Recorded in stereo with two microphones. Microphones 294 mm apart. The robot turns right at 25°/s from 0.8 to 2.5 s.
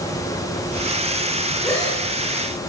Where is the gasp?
10° left (ahead or behind), 7.5 m; by 2.0 s 20° left (ahead or behind), 7.5 m.